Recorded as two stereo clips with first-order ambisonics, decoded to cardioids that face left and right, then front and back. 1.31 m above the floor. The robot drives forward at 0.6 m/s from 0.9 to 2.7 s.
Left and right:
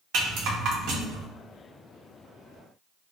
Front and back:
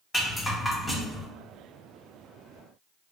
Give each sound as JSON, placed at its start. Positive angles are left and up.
{"t": 0.1, "sound": "a rattle", "azimuth_deg": -75, "distance_m": 0.8}